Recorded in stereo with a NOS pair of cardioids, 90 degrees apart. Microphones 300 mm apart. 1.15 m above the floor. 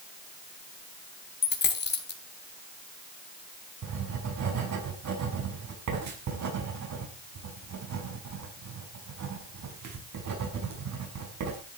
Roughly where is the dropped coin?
Ahead left.